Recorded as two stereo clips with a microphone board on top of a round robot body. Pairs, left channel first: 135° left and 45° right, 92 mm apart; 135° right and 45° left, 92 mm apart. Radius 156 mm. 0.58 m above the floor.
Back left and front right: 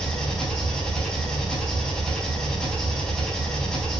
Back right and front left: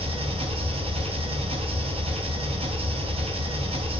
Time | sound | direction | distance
0.0 | an engine running | 50° left | 3.5 m